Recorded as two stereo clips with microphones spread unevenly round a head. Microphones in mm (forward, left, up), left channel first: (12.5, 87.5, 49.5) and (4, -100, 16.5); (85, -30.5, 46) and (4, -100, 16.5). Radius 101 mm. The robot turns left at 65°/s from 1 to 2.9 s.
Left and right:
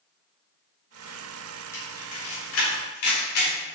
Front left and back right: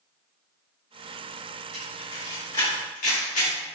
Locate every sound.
1.7 s a camera shutter: 165° left, 3.5 m; by 3.6 s 85° left, 3.5 m